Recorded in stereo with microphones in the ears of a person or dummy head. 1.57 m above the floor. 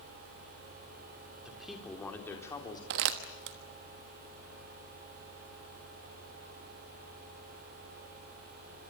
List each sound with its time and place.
1.4 s a man speaking: 5° right (ahead or behind), 4 m; by 2.8 s 20° left (ahead or behind), 4 m
2.9 s crumpling: 50° right (ahead or behind), 1.2 m